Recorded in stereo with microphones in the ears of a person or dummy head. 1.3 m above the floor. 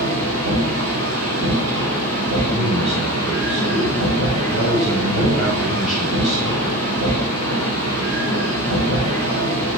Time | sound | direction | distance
0.0 | a machine running | 75° right (ahead or behind) | 3 m
2.5 | a man speaking | centre (ahead or behind) | 3.5 m